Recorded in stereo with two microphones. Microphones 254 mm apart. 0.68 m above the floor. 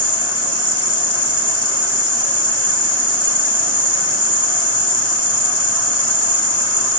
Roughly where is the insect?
Left.